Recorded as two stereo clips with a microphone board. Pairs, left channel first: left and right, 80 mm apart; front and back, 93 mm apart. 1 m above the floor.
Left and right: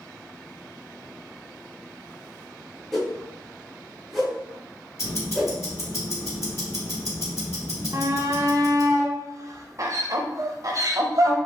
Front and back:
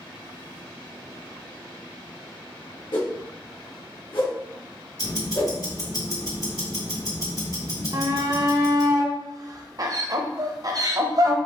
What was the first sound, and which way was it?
A whoosh, straight ahead.